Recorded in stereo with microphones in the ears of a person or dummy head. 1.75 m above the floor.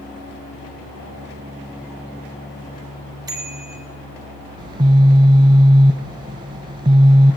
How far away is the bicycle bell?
About 3.5 m.